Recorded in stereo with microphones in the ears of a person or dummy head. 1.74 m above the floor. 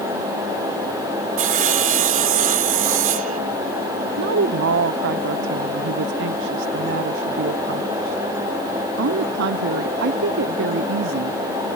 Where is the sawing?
35° right (ahead or behind).